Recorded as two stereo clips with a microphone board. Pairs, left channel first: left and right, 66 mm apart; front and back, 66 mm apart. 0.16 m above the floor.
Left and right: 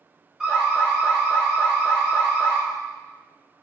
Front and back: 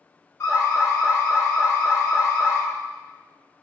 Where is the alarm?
5° right, 3 m.